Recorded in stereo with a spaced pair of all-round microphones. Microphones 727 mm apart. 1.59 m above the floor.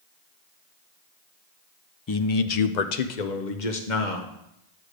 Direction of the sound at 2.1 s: 30° left (ahead or behind).